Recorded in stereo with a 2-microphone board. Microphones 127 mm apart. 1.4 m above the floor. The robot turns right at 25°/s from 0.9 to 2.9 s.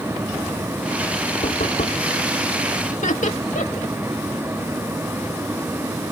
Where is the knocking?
85° left; by 2.1 s 80° left.